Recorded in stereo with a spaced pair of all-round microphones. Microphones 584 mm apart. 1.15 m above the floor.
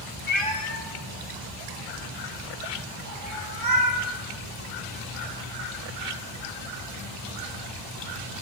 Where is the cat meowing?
20° left (ahead or behind), 0.8 m; by 4.0 s 40° right (ahead or behind), 2.5 m.